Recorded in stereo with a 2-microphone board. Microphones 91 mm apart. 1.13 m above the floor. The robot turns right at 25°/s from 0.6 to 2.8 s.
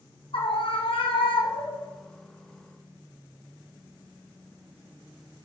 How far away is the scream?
About 1.4 m.